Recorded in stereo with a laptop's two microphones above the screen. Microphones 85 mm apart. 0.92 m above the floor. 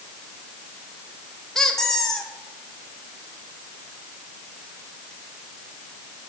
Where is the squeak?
5° left (ahead or behind), 0.6 m.